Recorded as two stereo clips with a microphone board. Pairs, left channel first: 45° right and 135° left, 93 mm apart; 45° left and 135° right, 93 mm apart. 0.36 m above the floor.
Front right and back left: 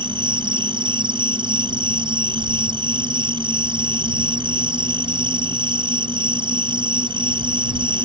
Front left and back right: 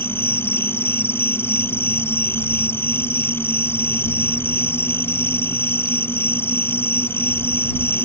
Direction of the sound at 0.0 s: 110° left.